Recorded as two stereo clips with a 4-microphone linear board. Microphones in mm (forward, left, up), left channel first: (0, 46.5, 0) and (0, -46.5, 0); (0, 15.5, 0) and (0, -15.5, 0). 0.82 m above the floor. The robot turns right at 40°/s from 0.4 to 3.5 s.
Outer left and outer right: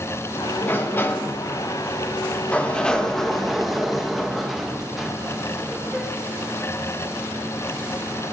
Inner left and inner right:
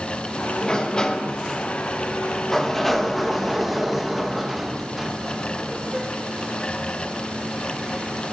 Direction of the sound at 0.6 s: 20° left (ahead or behind).